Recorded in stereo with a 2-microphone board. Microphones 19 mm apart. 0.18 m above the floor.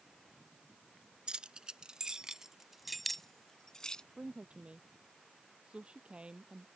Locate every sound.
1.3 s keys jangling: 55° right (ahead or behind); by 4.0 s 45° left (ahead or behind)
4.2 s a woman speaking: 75° right (ahead or behind)